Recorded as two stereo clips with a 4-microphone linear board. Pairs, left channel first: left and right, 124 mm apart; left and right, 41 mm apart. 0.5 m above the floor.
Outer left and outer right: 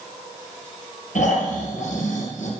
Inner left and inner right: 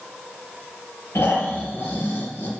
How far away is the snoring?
About 3.5 m.